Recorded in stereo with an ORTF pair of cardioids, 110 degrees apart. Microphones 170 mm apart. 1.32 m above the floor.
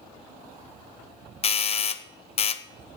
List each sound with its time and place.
1.4 s a doorbell: 40° left, 0.7 m